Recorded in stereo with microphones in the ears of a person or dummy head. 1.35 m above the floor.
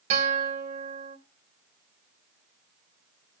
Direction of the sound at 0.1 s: 40° right (ahead or behind).